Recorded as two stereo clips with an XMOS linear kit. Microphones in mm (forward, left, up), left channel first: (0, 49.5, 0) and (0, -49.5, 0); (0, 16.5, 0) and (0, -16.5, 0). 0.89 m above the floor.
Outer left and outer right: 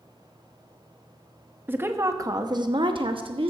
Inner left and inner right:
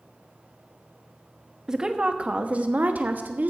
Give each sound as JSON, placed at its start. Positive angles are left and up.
{"t": 1.7, "sound": "a woman speaking", "side_deg": -20, "distance_m": 0.9}